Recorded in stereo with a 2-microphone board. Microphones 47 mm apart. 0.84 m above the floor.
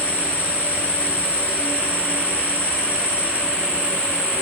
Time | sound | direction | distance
0.0 | an insect | 35° left (ahead or behind) | 3.5 m